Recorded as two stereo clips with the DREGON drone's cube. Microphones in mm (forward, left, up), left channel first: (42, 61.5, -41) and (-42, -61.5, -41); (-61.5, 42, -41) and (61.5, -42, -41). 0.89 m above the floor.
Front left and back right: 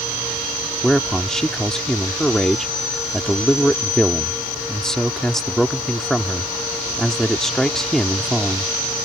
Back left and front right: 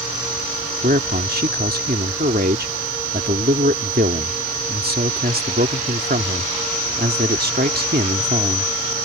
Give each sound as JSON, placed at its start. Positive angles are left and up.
{"t": 0.8, "sound": "a man speaking", "azimuth_deg": -30}